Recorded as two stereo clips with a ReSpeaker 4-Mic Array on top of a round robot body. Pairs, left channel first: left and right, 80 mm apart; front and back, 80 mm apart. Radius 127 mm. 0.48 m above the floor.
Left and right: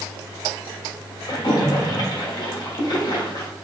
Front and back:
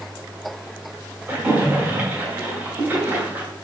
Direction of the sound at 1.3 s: 115° left.